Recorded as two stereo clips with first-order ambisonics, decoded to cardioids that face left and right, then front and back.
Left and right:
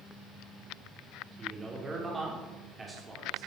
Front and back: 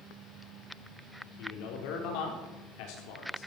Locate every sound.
1.4 s a man speaking: 15° right, 4 m